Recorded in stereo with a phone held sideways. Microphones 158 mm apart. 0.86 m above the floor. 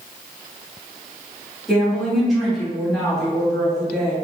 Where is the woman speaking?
Centre (ahead or behind), 1.5 m.